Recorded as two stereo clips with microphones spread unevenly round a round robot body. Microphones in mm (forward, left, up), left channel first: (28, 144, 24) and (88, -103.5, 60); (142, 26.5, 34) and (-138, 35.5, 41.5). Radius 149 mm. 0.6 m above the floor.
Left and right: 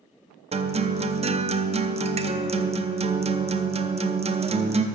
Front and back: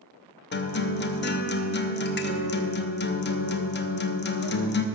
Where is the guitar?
15° right, 0.7 m.